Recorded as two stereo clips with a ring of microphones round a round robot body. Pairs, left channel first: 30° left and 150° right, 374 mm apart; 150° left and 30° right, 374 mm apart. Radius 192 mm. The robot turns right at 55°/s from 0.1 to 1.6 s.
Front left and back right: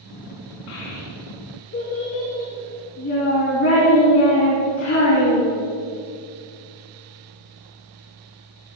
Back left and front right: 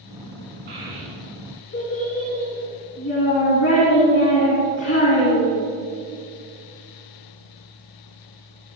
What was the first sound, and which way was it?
A child speaking, 40° left.